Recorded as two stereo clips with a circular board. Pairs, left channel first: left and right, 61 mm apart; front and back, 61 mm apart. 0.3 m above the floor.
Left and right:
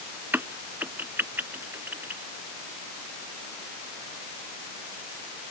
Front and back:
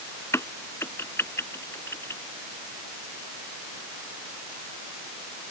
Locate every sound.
0.3 s a crack: 40° right